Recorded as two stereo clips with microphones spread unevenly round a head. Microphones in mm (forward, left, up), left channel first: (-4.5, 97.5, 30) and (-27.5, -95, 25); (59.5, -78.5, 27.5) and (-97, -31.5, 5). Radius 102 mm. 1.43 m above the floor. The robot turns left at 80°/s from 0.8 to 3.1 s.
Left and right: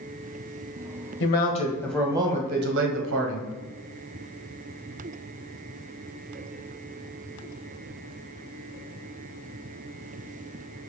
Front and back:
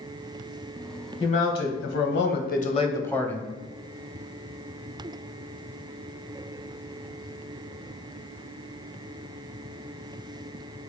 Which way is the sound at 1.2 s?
55° left.